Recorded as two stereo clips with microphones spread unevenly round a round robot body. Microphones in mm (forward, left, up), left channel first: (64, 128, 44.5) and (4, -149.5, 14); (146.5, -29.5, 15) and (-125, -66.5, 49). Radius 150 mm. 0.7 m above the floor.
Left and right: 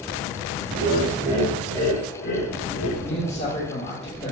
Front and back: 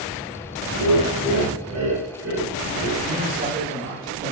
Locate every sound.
0.7 s laughter: 155° right, 1.2 m; by 2.9 s 110° left, 1.3 m
3.0 s a man speaking: 140° left, 1.4 m